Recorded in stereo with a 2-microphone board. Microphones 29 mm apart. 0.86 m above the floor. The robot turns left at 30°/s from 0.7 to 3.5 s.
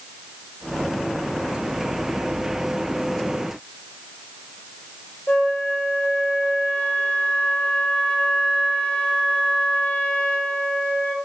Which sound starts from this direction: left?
A flute, at 5.3 s.